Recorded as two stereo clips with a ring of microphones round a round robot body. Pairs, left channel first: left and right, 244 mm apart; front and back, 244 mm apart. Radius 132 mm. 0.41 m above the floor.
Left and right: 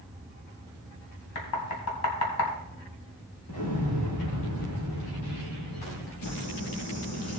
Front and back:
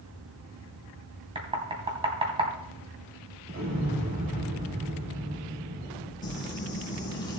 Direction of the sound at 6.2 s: 75° left.